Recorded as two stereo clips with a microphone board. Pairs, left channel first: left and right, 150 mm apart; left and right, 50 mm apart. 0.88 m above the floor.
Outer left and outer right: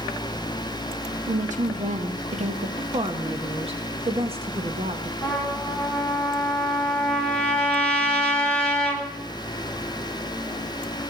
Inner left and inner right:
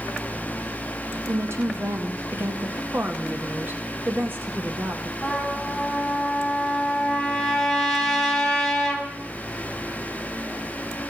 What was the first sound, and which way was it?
A woman speaking, 60° right (ahead or behind).